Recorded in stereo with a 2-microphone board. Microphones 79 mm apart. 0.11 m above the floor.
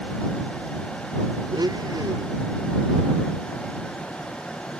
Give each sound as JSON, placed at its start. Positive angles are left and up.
{"t": 1.5, "sound": "a blender", "side_deg": -60}